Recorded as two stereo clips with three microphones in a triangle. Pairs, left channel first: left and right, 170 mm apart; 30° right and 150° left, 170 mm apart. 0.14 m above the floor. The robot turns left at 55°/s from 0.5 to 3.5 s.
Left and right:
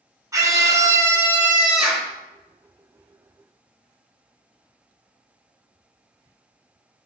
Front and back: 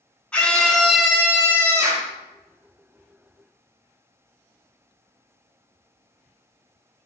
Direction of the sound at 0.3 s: 100° right.